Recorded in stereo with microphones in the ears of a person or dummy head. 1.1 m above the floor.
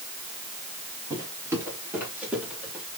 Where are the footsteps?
20° right (ahead or behind), 5.5 m; by 2.8 s 10° right (ahead or behind), 8 m.